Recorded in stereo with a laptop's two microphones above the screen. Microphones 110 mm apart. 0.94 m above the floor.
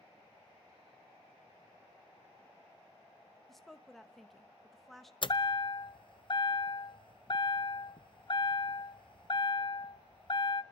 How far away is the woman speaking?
About 1.0 m.